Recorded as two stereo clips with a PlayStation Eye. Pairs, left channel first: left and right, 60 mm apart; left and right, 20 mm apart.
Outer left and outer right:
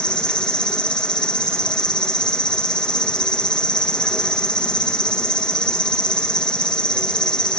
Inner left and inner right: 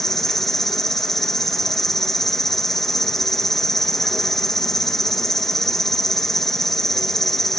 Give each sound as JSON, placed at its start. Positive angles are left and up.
{"t": 0.0, "sound": "an insect", "side_deg": 15, "distance_m": 1.3}